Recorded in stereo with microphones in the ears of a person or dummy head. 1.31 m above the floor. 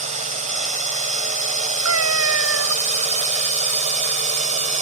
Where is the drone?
40° right (ahead or behind).